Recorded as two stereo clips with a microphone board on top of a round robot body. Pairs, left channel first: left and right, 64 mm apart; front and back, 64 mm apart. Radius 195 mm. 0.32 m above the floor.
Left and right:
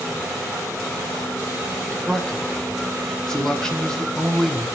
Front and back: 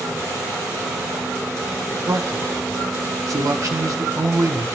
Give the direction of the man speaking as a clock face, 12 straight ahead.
6 o'clock.